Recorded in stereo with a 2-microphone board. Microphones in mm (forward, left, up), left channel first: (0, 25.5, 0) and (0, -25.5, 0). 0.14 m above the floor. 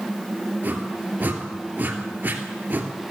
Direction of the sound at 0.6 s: 35° right (ahead or behind).